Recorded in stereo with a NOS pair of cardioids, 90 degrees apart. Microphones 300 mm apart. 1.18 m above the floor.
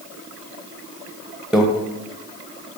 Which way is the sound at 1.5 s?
Straight ahead.